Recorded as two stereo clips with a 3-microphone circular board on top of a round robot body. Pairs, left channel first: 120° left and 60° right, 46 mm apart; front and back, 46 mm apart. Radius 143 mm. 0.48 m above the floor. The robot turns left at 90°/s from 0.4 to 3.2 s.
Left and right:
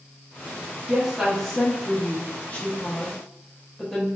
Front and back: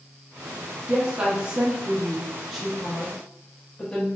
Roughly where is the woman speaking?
Behind right.